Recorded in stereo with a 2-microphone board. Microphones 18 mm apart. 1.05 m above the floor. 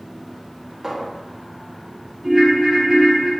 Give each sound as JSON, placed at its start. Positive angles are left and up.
{"t": 0.8, "sound": "a clink", "side_deg": -20, "distance_m": 1.9}
{"t": 2.2, "sound": "a ringtone", "side_deg": -25, "distance_m": 2.5}